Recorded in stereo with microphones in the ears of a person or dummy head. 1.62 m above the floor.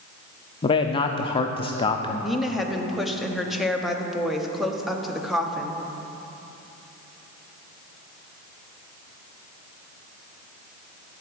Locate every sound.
0.6 s a man speaking: 25° left (ahead or behind), 0.5 m
2.2 s a woman speaking: centre (ahead or behind), 0.9 m